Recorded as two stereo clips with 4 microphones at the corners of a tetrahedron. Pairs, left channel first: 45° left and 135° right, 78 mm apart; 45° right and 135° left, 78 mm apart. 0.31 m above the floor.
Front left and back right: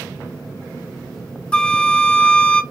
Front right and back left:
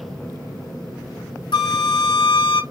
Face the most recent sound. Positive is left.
turn(degrees=-30)